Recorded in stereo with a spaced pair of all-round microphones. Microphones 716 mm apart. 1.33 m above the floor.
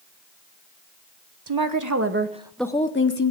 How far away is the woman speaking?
About 1.0 m.